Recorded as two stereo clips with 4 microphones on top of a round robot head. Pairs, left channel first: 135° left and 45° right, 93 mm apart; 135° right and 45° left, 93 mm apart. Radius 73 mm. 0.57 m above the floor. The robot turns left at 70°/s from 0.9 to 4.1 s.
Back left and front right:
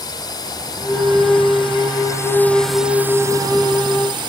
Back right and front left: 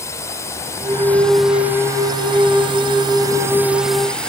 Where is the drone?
170° left; by 4.3 s 55° right.